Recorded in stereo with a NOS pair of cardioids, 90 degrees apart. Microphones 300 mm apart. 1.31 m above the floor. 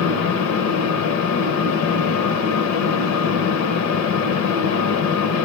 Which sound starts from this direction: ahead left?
A fan, at 0.0 s.